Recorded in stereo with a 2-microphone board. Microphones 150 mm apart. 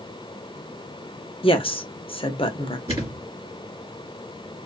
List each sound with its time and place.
1.4 s a woman speaking: 40° left (ahead or behind), 0.6 m
2.9 s a thud: 40° right (ahead or behind), 1.3 m